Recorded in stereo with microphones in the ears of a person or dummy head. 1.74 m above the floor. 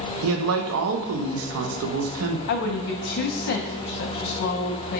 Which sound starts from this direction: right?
A man speaking, at 0.2 s.